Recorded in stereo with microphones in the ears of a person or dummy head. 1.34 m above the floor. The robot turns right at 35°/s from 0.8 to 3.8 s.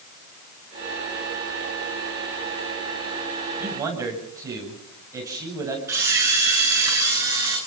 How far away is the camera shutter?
About 9.5 m.